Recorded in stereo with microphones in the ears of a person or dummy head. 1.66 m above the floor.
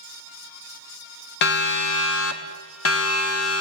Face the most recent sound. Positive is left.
turn(degrees=80)